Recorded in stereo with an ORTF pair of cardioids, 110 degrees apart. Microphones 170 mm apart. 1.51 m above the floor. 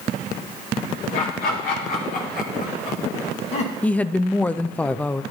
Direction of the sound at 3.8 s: 10° left.